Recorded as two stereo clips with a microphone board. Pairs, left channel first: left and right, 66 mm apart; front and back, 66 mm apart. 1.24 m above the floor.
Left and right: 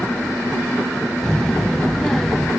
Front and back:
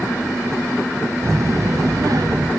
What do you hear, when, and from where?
1.2 s a child speaking: 165° left, 0.5 m; by 2.5 s 175° left, 1.2 m